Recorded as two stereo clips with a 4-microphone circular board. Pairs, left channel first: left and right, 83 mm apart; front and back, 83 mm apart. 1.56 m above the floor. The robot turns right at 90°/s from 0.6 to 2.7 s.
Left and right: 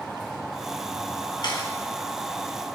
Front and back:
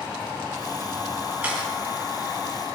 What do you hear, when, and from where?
1.4 s a camera shutter: 110° left, 3.5 m; by 1.7 s 135° left, 3.5 m